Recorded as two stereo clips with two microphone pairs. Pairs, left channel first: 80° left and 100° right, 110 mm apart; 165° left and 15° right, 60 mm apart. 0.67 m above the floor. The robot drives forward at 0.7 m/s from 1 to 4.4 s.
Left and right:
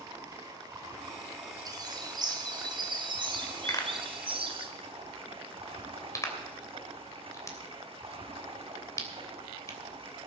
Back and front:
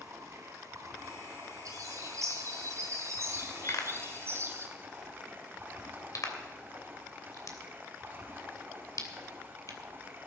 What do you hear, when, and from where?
0.0 s running water: 45° right, 5 m; by 10.3 s 75° right, 4 m
1.6 s a bird: 45° right, 5 m; by 4.7 s 65° right, 3.5 m
3.7 s a pop: 135° left, 2.5 m; by 9.8 s 140° left, 3 m